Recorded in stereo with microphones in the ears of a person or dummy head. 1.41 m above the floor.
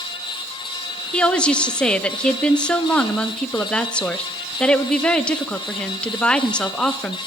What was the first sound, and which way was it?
A woman speaking, 5° left (ahead or behind).